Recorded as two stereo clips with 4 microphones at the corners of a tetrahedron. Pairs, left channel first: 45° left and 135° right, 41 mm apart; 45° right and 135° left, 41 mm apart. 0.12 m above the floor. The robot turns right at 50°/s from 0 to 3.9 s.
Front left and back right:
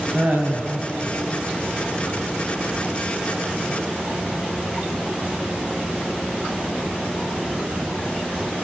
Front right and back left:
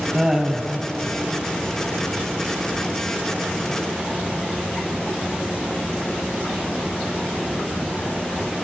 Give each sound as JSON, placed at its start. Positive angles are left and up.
{"t": 0.1, "sound": "laughter", "azimuth_deg": -155, "distance_m": 2.5}